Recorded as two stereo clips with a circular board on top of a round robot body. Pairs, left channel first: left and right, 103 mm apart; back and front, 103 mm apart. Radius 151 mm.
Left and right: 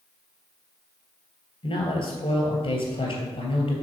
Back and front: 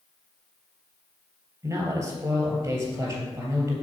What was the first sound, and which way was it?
A man speaking, 65° left.